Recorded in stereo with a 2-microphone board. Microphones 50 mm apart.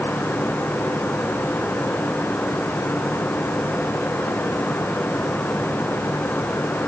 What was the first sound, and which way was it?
Only background noise.